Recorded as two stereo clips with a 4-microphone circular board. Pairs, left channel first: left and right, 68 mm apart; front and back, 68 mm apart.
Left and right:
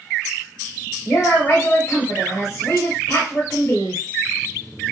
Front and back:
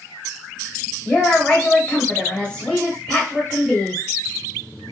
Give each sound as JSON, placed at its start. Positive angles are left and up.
{"t": 1.1, "sound": "a woman speaking", "azimuth_deg": 70, "distance_m": 0.9}